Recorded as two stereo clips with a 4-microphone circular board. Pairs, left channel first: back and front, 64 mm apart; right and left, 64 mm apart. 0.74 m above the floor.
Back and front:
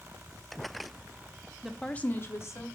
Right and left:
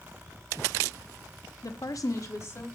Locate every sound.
1.6 s a woman speaking: 80° right, 0.8 m; by 2.7 s 135° right, 1.8 m